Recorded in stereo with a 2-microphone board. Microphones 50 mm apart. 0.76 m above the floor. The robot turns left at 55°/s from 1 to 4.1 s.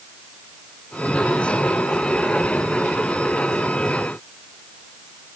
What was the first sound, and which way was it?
Only background noise.